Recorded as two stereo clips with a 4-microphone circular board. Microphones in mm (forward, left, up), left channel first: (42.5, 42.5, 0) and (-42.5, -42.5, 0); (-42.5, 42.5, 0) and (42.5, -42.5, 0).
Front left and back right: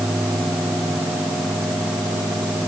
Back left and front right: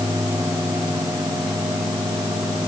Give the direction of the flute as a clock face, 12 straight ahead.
I don't hear a flute.